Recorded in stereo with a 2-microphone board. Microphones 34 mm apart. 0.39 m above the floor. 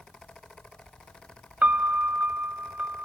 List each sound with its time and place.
1.6 s a piano: 50° right (ahead or behind), 0.6 m